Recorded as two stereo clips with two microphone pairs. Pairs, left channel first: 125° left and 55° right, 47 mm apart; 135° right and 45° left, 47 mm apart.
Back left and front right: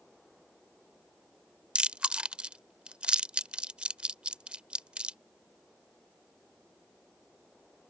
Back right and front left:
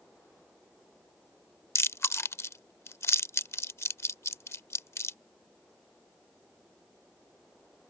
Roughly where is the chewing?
Behind right.